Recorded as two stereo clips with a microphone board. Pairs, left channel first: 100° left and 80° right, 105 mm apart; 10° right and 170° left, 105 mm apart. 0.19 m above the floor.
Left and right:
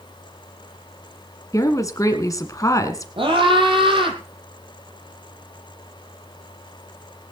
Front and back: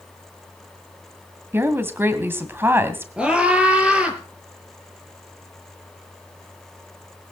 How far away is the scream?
About 6 m.